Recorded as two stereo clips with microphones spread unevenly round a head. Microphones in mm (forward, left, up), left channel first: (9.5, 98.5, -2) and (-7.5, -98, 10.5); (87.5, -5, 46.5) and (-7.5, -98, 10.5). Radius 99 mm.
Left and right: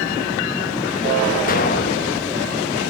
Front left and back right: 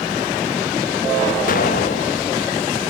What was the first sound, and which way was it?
An explosion, 35° left.